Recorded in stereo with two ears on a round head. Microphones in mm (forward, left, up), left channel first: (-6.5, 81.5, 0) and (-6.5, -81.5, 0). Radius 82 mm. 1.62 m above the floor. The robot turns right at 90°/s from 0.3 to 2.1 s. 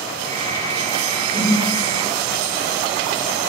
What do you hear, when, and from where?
1.3 s a whoosh: 25° right (ahead or behind), 1.0 m; by 1.6 s 30° right (ahead or behind), 1.0 m